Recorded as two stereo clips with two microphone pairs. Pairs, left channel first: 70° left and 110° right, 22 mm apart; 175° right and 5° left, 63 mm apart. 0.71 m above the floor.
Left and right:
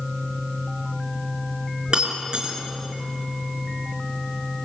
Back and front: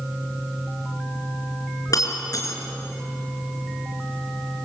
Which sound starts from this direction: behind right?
Breaking glass, at 1.9 s.